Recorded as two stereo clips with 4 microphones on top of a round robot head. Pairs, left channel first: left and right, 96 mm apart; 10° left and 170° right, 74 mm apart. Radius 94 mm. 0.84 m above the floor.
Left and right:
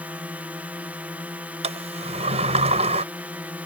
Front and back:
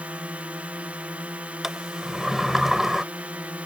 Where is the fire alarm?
I don't hear a fire alarm.